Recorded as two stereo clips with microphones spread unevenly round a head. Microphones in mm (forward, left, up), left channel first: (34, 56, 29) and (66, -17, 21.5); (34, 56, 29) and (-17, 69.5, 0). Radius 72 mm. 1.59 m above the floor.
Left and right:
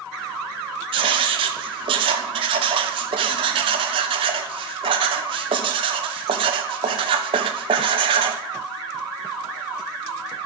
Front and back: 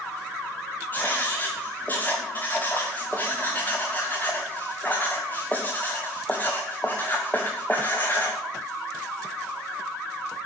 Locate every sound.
0.9 s writing: 95° right, 1.2 m